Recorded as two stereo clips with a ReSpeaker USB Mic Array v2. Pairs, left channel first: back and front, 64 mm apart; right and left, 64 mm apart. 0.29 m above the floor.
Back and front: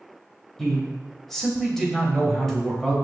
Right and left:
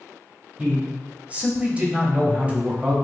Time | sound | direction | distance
0.6 | a man speaking | 105° left | 1.2 m